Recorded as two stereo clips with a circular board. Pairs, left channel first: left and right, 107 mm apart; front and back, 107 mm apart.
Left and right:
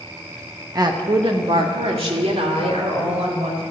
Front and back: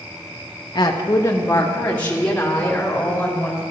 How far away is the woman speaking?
About 0.8 m.